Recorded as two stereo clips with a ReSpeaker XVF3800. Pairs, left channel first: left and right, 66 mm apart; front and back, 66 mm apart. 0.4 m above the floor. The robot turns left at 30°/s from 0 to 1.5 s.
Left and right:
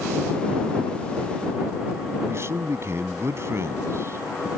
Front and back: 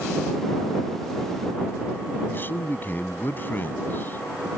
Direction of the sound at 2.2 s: 50° right.